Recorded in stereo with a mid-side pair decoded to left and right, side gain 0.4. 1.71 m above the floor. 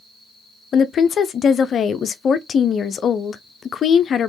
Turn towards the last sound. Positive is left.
turn(degrees=60)